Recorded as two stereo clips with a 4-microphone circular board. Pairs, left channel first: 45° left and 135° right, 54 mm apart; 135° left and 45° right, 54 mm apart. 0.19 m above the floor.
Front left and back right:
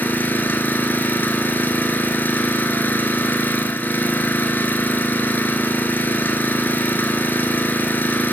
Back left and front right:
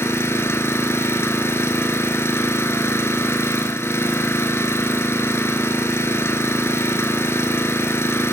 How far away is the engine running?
About 0.9 m.